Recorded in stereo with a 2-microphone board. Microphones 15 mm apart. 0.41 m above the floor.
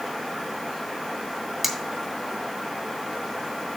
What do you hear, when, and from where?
1.6 s cutlery clinking: 15° right (ahead or behind), 1.0 m